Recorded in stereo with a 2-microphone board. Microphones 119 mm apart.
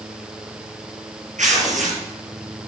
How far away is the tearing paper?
About 5 m.